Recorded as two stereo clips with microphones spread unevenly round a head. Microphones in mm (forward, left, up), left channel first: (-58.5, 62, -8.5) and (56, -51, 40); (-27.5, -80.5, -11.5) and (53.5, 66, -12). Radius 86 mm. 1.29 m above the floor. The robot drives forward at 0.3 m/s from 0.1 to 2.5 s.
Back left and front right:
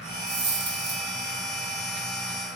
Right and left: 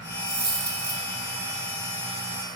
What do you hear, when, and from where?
0.3 s a dropped coin: 30° right, 1.5 m; by 1.0 s 40° right, 1.3 m